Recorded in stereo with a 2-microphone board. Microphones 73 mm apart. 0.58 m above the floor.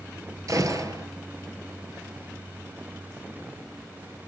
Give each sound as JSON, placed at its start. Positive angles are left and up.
{"t": 0.5, "sound": "a gunshot", "side_deg": -50, "distance_m": 2.0}